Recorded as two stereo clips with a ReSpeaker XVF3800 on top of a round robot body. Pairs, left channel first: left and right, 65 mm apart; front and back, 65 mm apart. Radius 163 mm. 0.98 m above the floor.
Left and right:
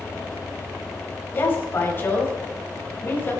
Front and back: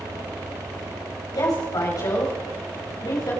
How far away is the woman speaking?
About 5.5 m.